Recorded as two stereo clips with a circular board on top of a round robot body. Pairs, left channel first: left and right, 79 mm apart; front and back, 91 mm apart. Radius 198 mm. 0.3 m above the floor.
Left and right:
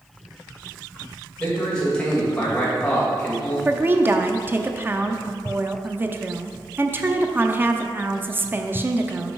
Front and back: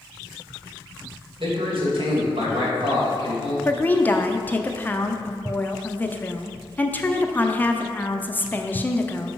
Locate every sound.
1.4 s a man speaking: 170° left, 3 m
3.6 s a woman speaking: 55° right, 0.9 m